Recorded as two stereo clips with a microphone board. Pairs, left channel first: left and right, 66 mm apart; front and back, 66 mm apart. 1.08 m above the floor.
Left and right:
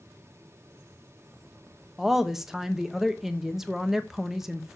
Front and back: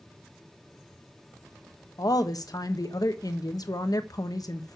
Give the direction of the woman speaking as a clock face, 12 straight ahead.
12 o'clock.